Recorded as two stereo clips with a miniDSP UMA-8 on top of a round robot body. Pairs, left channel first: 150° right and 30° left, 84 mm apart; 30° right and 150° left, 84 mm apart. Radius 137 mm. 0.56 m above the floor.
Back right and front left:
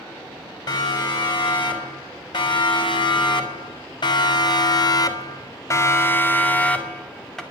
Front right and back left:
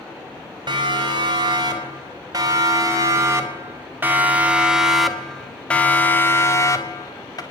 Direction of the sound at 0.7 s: Straight behind.